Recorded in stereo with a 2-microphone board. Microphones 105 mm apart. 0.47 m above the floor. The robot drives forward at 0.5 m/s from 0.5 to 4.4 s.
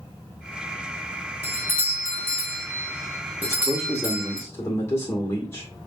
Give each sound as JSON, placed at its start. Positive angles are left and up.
{"t": 1.4, "sound": "a doorbell", "side_deg": -25, "distance_m": 1.7}
{"t": 3.4, "sound": "a man speaking", "side_deg": 25, "distance_m": 1.5}